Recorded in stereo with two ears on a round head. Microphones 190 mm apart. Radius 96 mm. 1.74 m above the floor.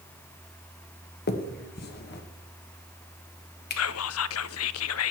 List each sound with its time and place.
1.3 s a finger snap: 50° left (ahead or behind), 1.3 m
3.8 s whispering: 70° left (ahead or behind), 0.6 m